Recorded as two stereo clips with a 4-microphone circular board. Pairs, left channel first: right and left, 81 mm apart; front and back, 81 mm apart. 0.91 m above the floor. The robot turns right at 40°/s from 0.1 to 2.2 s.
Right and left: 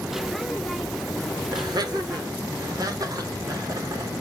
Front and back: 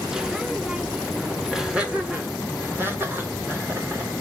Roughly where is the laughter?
Left.